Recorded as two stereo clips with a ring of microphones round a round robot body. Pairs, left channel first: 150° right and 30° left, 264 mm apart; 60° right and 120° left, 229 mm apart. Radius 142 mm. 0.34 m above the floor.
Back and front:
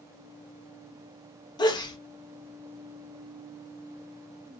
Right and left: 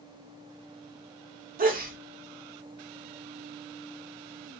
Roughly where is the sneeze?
Behind left.